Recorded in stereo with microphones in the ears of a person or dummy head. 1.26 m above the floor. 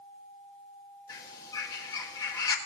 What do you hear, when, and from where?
1.1 s a bird: 20° left (ahead or behind), 1.5 m